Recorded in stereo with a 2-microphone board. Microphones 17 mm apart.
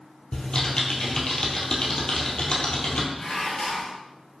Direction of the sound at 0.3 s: 65° left (ahead or behind).